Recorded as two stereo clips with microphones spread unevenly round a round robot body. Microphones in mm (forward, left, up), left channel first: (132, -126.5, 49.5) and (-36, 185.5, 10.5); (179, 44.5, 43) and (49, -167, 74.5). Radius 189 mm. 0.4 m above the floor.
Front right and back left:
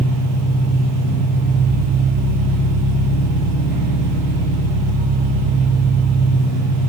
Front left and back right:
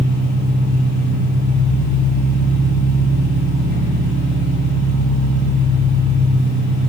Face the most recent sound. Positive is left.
turn(degrees=-75)